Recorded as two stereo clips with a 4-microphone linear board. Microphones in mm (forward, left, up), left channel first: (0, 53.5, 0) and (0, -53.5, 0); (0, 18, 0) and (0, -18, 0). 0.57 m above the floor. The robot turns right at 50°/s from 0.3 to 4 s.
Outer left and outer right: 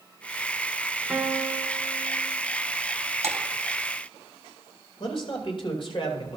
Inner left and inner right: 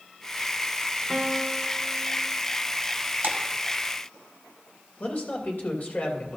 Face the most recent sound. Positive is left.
turn(degrees=55)  # may be behind; listen again after turning